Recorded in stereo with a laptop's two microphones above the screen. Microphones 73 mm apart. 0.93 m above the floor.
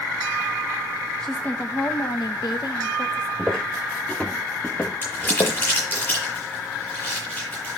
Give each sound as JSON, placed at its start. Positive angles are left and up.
{"t": 1.2, "sound": "a woman speaking", "side_deg": 5, "distance_m": 0.8}
{"t": 3.4, "sound": "footsteps", "side_deg": 5, "distance_m": 2.0}
{"t": 5.0, "sound": "crumpling", "side_deg": 25, "distance_m": 9.0}